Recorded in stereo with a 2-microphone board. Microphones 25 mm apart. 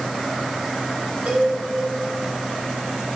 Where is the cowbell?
55° right (ahead or behind), 5.5 m.